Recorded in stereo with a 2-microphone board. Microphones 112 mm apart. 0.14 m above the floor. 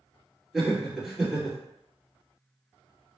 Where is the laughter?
Centre (ahead or behind), 1.9 m.